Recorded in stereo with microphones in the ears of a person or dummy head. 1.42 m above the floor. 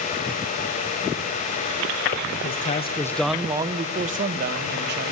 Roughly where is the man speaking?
Left.